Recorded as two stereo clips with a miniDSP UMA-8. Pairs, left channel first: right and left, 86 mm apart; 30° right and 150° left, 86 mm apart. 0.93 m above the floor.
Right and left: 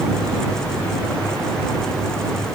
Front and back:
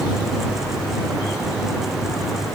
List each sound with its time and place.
Only background noise.